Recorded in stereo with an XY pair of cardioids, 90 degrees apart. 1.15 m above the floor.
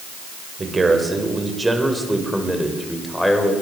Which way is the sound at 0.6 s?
30° right.